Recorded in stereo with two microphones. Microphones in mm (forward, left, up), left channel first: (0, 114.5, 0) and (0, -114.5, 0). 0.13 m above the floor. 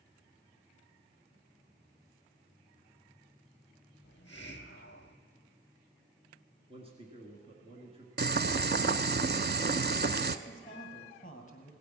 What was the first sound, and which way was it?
A hiss, 55° left (ahead or behind).